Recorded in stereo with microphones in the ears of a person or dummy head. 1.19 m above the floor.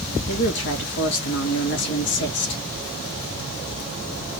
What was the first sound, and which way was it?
A woman speaking, 60° left (ahead or behind).